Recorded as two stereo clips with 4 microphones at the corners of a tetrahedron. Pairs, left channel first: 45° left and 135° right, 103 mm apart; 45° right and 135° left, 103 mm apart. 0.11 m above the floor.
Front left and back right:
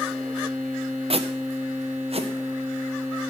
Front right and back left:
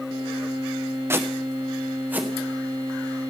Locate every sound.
1.1 s footsteps: 160° right, 0.9 m; by 2.3 s 150° right, 1.8 m